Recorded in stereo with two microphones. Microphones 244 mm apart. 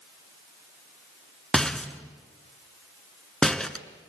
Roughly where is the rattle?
Centre.